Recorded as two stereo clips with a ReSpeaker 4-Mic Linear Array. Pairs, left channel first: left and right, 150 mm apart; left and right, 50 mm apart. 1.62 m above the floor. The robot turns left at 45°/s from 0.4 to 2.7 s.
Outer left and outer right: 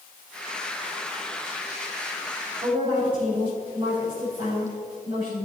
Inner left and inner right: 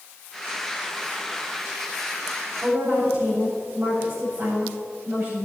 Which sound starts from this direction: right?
A woman speaking, at 2.6 s.